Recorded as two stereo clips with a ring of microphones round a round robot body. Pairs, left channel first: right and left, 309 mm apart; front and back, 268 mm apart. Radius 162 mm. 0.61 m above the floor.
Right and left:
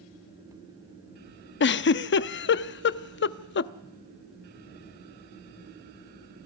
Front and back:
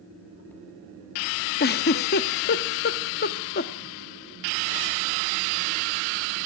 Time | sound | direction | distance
1.6 | a giggle | 45° right | 0.6 m